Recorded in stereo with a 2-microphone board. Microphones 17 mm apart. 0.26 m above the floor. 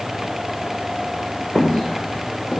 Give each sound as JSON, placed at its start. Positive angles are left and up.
{"t": 1.6, "sound": "footsteps", "side_deg": 65, "distance_m": 2.5}